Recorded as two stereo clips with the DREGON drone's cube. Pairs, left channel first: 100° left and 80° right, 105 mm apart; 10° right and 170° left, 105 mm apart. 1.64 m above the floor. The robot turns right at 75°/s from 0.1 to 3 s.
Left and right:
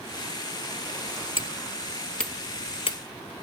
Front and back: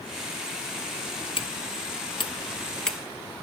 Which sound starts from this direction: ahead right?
Hammering, at 1.4 s.